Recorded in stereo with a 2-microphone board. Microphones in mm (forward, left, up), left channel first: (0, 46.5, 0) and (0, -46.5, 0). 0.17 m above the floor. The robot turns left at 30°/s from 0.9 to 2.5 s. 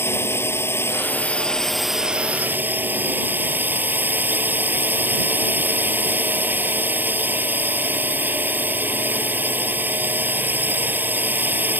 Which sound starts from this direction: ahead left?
A drone, at 0.0 s.